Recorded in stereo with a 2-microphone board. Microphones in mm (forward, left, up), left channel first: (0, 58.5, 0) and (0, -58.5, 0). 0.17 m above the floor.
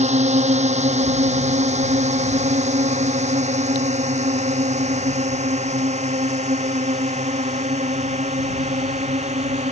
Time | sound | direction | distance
0.0 | a drone | 80° right | ?